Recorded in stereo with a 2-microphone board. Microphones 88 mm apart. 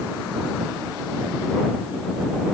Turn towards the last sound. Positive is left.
No sound to turn to.